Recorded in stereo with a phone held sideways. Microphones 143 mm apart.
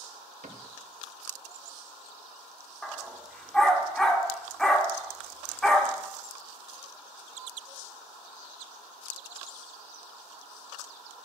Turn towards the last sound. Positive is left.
turn(degrees=5)  # may be behind; listen again after turning